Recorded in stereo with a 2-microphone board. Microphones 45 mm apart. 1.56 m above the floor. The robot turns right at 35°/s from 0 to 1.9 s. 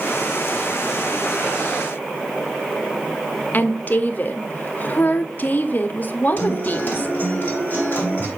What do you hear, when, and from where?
3.5 s a woman speaking: 40° left (ahead or behind), 0.7 m
6.4 s a guitar: 40° left (ahead or behind), 2.5 m